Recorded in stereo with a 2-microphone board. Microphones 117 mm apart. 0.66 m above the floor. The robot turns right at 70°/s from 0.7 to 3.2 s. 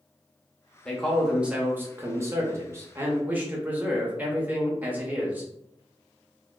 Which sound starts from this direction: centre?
A man speaking, at 0.8 s.